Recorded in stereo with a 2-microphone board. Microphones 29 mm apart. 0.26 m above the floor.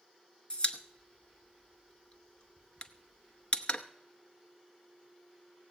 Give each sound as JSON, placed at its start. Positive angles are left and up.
{"t": 0.5, "sound": "a pop", "side_deg": 35, "distance_m": 0.8}